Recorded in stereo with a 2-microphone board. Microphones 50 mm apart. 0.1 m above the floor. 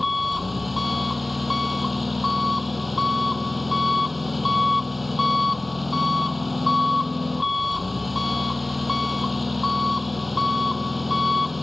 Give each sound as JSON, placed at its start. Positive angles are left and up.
{"t": 0.0, "sound": "an engine running", "side_deg": -5}